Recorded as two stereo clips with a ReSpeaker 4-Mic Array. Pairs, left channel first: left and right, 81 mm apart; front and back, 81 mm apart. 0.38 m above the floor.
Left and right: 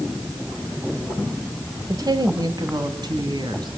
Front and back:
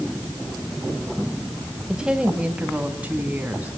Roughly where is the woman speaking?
Right.